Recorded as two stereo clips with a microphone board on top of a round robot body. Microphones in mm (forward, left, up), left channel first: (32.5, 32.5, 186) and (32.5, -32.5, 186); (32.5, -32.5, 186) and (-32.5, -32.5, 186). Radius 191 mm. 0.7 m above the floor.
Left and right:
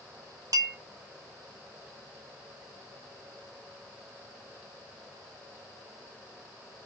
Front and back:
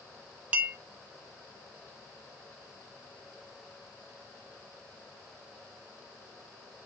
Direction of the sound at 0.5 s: 110° right.